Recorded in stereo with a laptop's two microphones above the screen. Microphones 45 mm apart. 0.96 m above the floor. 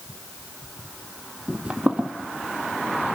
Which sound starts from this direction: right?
Footsteps, at 1.5 s.